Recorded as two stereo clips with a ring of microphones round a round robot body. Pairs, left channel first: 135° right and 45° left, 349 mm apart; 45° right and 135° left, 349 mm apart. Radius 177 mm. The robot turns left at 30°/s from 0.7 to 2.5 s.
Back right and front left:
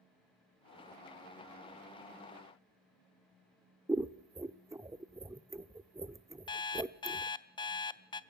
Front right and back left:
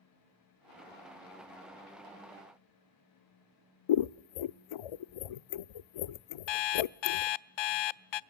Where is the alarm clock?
55° right, 0.6 m.